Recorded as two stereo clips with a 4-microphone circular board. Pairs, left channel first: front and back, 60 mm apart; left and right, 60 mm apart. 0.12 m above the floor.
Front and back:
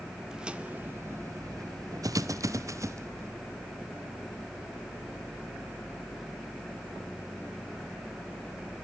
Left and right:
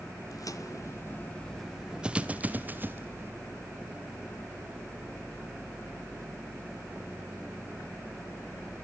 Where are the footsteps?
100° left, 1.4 m; by 3.3 s 140° right, 2.5 m.